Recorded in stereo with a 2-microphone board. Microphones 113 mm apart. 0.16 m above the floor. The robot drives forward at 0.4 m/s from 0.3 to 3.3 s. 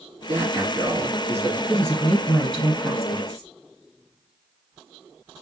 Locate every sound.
0.3 s a man speaking: 20° right (ahead or behind), 2.5 m; by 1.6 s 15° right (ahead or behind), 3 m
1.7 s a woman speaking: 10° left (ahead or behind), 2.5 m; by 3.5 s 5° left (ahead or behind), 3 m